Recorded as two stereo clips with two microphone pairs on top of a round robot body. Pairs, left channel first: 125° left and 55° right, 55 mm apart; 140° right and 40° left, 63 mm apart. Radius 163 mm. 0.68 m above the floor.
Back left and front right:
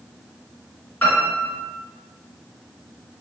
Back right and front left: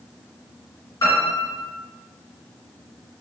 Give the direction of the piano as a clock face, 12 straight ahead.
6 o'clock.